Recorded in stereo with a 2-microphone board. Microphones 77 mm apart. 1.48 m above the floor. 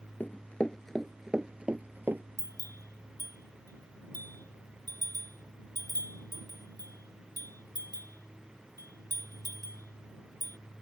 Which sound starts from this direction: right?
A bell, at 2.4 s.